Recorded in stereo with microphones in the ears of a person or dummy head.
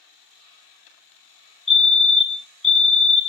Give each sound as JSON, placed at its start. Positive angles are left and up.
{"t": 1.7, "sound": "a fire alarm", "side_deg": -5, "distance_m": 0.8}